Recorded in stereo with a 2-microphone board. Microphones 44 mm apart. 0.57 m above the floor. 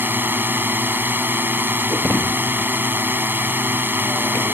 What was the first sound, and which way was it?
A drone, 50° right (ahead or behind).